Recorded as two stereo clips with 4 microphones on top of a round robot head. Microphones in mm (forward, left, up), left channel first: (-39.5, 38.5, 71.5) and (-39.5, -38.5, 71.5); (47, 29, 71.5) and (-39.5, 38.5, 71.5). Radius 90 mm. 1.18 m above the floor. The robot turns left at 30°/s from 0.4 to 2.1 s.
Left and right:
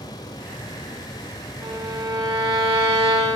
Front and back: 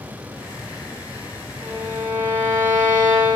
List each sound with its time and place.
1.6 s a violin: 115° right, 3 m; by 3.4 s 130° right, 3 m